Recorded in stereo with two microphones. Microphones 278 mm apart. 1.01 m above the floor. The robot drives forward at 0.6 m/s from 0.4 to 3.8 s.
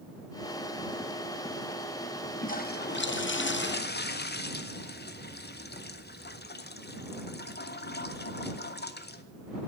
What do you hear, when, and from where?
2.4 s a toilet flushing: 30° left (ahead or behind), 0.7 m; by 9.2 s 35° left (ahead or behind), 0.6 m